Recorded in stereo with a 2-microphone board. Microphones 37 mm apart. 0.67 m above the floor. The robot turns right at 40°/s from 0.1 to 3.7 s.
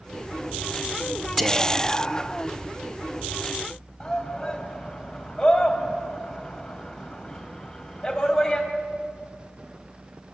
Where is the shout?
20° left (ahead or behind), 3 m.